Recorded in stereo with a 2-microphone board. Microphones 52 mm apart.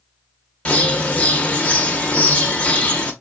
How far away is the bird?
About 0.9 m.